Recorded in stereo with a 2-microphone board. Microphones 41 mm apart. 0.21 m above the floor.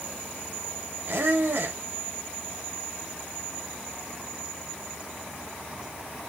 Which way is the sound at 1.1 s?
55° right (ahead or behind).